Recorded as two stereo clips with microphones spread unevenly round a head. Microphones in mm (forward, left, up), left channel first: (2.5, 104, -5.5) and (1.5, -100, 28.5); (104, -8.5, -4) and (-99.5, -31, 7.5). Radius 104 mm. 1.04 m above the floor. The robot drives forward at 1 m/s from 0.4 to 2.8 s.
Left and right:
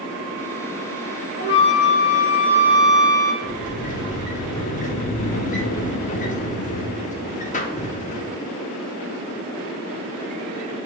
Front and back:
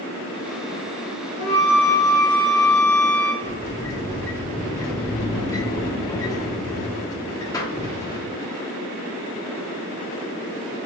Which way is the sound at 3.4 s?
70° left.